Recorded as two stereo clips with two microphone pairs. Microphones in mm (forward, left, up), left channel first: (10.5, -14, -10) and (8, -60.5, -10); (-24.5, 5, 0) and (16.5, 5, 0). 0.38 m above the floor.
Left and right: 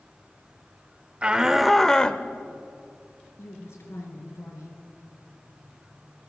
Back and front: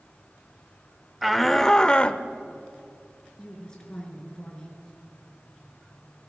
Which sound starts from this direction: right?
A shout, at 1.2 s.